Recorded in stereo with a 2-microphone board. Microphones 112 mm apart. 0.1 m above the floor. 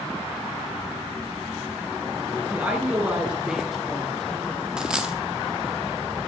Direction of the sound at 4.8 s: 5° right (ahead or behind).